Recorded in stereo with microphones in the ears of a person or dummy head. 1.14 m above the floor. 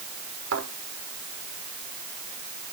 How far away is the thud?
About 6 m.